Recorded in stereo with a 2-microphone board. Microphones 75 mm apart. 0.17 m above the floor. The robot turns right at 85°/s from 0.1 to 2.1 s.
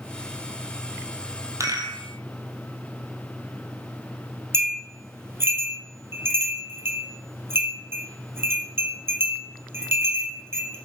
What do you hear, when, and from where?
1.6 s a rattle: 140° right, 1.0 m; by 2.0 s 100° right, 1.0 m
4.5 s a bell: 30° right (ahead or behind), 1.3 m